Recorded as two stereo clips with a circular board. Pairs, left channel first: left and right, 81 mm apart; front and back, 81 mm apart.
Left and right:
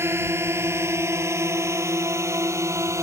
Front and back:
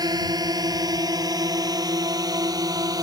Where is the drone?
145° right; by 3.0 s 140° right.